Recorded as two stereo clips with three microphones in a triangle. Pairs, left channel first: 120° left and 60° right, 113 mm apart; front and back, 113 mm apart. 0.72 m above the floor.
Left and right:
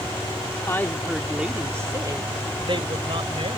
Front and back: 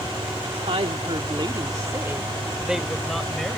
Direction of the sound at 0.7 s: Straight behind.